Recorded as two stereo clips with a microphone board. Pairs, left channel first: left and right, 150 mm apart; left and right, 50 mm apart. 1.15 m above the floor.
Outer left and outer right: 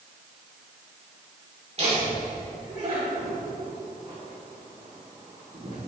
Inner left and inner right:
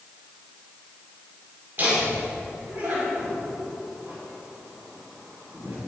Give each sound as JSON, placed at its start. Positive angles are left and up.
{"t": 1.8, "sound": "laughter", "side_deg": -45, "distance_m": 3.5}